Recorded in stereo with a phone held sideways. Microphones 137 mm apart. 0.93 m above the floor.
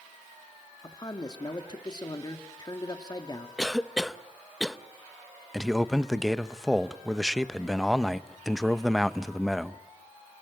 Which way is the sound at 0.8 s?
30° left (ahead or behind).